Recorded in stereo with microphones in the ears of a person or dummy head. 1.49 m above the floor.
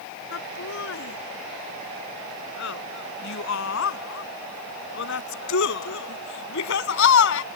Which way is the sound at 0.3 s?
70° left (ahead or behind).